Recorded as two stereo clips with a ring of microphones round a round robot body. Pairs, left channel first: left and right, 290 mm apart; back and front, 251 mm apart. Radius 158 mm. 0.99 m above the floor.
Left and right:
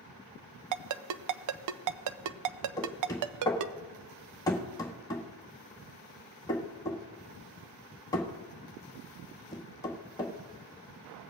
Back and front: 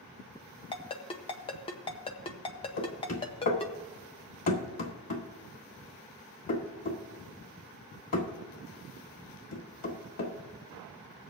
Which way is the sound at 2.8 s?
170° left.